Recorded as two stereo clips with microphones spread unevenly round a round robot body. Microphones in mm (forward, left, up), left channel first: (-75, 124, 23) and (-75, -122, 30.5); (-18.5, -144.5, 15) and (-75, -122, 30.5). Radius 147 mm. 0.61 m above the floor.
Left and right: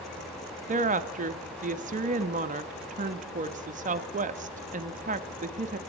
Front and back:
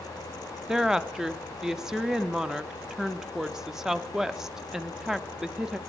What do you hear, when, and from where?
0.7 s a woman speaking: 95° right, 0.6 m